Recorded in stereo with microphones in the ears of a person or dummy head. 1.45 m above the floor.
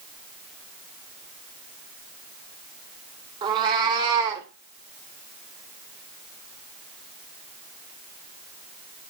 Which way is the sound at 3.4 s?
20° right (ahead or behind).